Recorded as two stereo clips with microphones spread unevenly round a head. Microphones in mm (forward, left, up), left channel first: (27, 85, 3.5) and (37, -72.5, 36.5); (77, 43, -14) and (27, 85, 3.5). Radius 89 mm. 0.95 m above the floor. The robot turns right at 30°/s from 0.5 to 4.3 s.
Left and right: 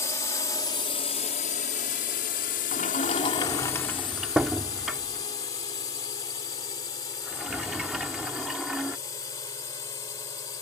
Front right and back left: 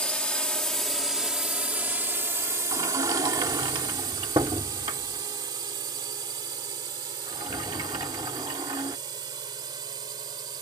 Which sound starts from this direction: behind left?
A sliding door, at 2.7 s.